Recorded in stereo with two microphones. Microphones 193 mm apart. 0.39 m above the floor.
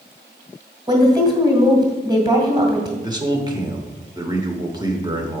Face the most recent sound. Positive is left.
turn(degrees=-20)  # may be behind; listen again after turning